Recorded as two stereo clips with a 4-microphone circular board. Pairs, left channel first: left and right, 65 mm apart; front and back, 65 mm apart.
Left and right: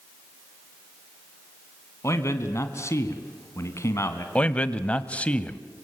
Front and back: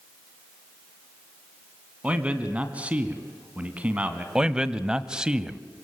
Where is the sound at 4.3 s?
120° left, 1.0 m.